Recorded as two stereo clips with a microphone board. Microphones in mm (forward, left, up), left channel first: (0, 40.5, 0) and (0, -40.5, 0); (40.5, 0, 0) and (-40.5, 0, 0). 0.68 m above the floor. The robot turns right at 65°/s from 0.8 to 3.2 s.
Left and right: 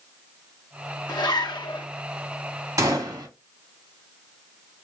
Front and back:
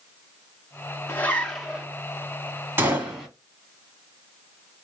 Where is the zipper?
55° left, 1.1 m; by 1.9 s 105° left, 1.1 m.